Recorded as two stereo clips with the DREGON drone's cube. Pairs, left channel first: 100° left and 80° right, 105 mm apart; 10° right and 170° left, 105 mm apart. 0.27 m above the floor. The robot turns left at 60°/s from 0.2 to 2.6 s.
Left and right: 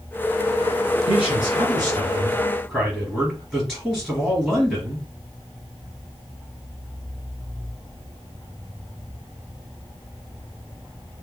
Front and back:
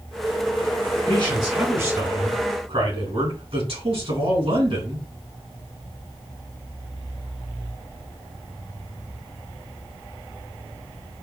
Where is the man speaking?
85° right, 3.5 m; by 5.1 s 175° right, 3.5 m.